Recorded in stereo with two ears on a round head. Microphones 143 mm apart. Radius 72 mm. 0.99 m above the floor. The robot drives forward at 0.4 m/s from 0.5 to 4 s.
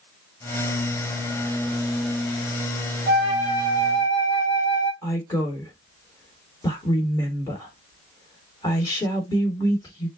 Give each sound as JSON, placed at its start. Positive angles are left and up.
{"t": 3.1, "sound": "a flute", "side_deg": 25, "distance_m": 2.5}
{"t": 5.0, "sound": "a woman speaking", "side_deg": 20, "distance_m": 3.0}